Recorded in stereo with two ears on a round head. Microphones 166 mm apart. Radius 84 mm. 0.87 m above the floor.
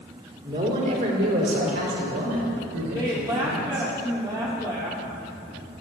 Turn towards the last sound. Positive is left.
turn(degrees=-25)  # may be behind; listen again after turning